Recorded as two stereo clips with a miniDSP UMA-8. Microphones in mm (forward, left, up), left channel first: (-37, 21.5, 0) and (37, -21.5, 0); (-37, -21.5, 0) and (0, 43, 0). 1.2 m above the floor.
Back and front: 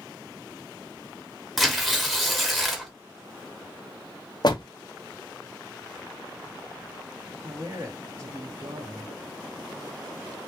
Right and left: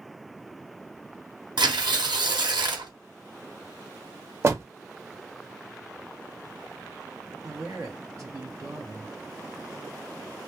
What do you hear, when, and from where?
1.6 s tearing paper: 60° left, 0.7 m
4.4 s a door slam: 115° left, 0.5 m
7.4 s a man speaking: 20° left, 1.4 m